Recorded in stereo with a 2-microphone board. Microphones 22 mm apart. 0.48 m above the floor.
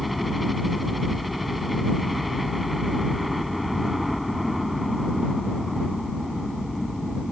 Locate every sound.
0.0 s a helicopter: centre (ahead or behind)